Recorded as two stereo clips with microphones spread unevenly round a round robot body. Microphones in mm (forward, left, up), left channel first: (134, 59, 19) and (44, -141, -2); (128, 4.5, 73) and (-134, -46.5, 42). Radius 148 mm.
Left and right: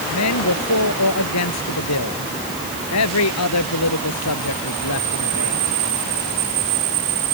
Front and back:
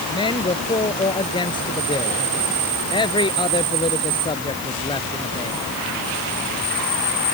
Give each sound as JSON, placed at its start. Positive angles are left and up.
{"t": 0.1, "sound": "a man speaking", "azimuth_deg": 85}